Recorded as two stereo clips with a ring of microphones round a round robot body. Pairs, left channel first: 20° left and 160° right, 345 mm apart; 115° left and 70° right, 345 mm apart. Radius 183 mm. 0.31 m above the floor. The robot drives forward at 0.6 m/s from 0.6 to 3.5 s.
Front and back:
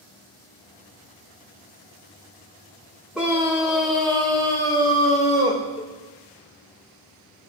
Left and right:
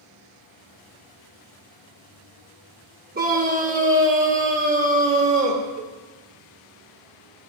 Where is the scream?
70° right, 1.3 m; by 5.6 s 95° right, 1.3 m.